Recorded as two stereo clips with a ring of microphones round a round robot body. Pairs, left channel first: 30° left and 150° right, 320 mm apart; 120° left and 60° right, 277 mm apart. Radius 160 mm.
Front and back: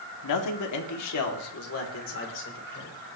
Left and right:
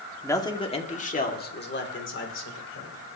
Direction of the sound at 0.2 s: 40° left.